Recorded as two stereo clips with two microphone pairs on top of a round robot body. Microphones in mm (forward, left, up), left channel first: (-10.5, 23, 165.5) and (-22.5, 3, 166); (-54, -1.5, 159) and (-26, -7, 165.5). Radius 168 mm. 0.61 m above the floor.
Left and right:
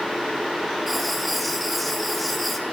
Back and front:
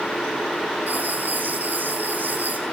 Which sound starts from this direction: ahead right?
Writing, at 0.9 s.